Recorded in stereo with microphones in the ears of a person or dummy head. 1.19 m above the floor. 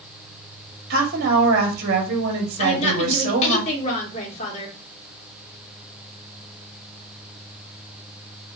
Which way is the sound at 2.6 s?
40° left (ahead or behind).